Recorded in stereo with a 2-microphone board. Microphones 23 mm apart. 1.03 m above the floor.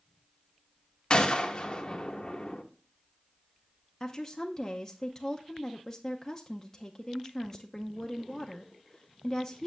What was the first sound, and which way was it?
A gunshot, 35° left (ahead or behind).